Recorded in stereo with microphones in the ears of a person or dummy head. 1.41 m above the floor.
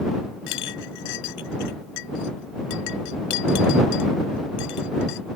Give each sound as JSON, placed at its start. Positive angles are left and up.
{"t": 0.5, "sound": "a clink", "side_deg": 65}